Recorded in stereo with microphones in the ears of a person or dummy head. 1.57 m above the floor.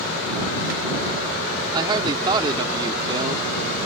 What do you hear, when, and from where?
1.7 s a man speaking: 30° right (ahead or behind)